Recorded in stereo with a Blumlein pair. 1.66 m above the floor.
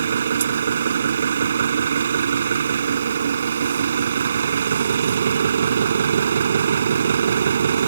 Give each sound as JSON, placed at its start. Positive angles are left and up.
{"t": 0.0, "sound": "an engine running", "azimuth_deg": -65}